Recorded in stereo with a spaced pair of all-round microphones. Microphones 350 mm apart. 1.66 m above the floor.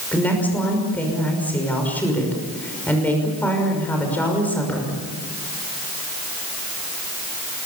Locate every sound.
0.1 s a woman speaking: 5° left (ahead or behind), 6 m